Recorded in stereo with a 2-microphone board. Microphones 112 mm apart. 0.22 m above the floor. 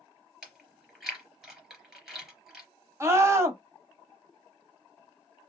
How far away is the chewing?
About 3.5 m.